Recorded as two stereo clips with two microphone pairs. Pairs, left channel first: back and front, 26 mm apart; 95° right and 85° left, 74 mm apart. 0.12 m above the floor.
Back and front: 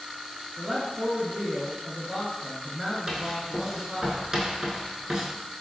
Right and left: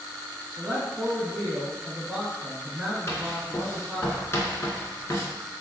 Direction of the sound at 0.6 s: 30° left.